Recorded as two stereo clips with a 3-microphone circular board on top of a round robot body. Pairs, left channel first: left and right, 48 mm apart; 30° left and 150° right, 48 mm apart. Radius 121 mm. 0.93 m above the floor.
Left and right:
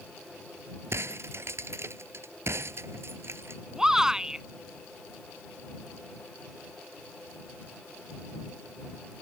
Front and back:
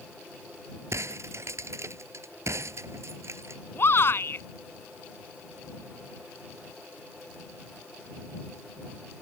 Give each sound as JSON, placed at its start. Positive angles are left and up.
{"t": 0.9, "sound": "breaking glass", "azimuth_deg": -125}
{"t": 3.8, "sound": "a shout", "azimuth_deg": -10}